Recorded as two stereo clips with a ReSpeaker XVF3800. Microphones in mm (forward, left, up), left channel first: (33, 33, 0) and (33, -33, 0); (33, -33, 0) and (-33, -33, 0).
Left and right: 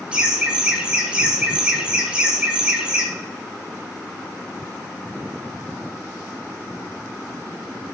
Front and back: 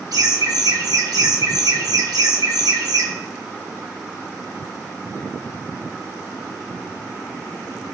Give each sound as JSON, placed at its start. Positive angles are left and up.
{"t": 0.1, "sound": "laughter", "azimuth_deg": -165, "distance_m": 1.1}